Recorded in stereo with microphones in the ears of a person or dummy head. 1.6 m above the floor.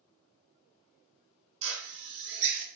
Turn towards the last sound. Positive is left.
turn(degrees=-65)  # may be behind; listen again after turning